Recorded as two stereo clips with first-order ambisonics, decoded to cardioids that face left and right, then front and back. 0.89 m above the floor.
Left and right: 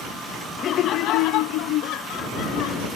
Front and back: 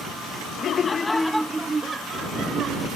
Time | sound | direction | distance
0.6 | laughter | 40° left | ?